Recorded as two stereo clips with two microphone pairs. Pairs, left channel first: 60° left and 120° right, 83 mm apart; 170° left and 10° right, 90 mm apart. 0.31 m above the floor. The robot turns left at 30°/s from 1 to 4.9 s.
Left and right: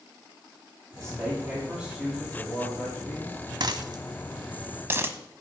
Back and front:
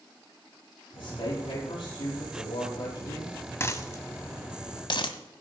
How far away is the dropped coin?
About 0.9 m.